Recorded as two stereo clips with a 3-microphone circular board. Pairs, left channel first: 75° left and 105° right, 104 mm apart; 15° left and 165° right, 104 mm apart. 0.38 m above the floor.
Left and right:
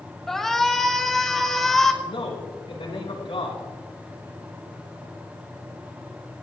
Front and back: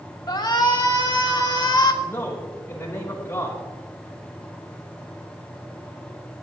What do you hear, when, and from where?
0.3 s a shout: 10° right, 1.8 m
2.0 s a man speaking: 80° left, 3.5 m